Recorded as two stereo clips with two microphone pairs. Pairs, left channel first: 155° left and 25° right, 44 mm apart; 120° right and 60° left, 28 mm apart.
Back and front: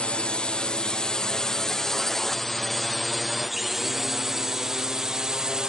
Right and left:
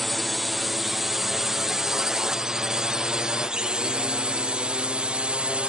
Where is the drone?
150° left; by 5.7 s 45° left.